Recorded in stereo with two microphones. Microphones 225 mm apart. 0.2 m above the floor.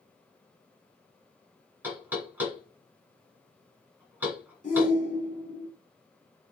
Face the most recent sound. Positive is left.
turn(degrees=35)  # may be behind; listen again after turning